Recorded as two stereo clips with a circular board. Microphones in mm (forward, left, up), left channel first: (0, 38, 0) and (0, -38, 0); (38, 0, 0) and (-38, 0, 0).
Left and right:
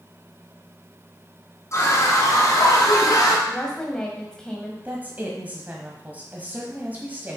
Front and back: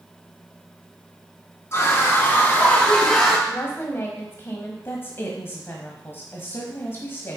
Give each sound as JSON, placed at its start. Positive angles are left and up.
{"t": 1.7, "sound": "a scream", "azimuth_deg": 50, "distance_m": 3.0}
{"t": 3.5, "sound": "a woman speaking", "azimuth_deg": 15, "distance_m": 1.3}
{"t": 4.8, "sound": "a woman speaking", "azimuth_deg": -35, "distance_m": 1.2}